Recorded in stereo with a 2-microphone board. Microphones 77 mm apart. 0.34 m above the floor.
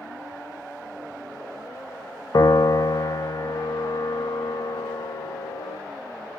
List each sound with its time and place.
2.3 s a piano: 55° left (ahead or behind), 0.6 m